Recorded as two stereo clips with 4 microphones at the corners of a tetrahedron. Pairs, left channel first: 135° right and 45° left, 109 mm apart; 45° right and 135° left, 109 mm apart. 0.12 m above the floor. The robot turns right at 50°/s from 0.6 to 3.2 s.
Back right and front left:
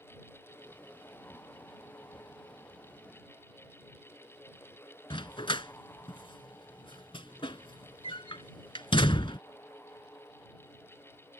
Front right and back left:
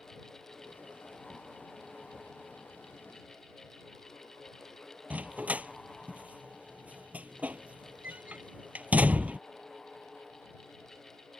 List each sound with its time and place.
5.1 s a dog barking: 150° right